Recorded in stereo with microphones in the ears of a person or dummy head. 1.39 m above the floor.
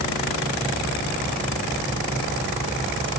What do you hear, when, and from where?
Only background noise.